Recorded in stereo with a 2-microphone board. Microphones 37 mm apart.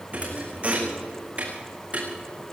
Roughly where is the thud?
Right.